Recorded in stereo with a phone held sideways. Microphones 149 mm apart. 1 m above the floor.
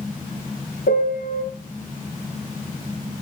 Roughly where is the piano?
Left.